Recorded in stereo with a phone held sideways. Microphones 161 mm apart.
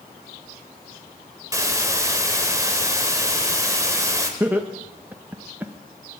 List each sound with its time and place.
1.5 s a hiss: 20° right (ahead or behind), 1.6 m
4.4 s laughter: 10° right (ahead or behind), 0.9 m